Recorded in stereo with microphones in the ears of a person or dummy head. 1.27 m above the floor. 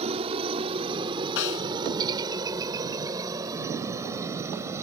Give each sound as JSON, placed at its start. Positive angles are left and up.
{"t": 0.0, "sound": "a helicopter", "side_deg": -30}
{"t": 1.4, "sound": "a snare drum", "side_deg": 70}